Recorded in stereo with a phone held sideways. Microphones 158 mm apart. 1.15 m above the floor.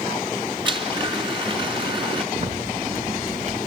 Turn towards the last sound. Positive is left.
turn(degrees=-50)  # may be behind; listen again after turning